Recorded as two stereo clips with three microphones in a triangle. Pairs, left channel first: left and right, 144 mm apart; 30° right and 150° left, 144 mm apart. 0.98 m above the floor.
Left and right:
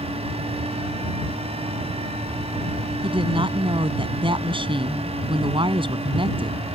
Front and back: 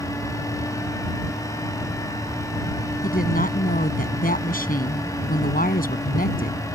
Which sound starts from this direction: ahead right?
A woman speaking, at 3.0 s.